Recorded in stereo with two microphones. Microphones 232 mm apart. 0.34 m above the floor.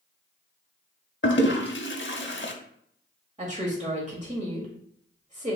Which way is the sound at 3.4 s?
30° right (ahead or behind).